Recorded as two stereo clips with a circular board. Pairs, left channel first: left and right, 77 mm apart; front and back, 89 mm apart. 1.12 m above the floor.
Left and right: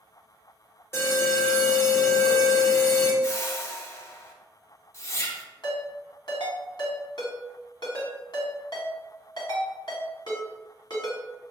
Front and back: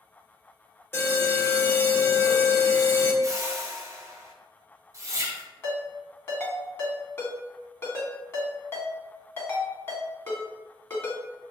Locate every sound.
0.9 s an alarm: 50° left, 1.4 m
3.2 s a whoosh: 135° left, 0.6 m
5.6 s a ringtone: 60° left, 1.4 m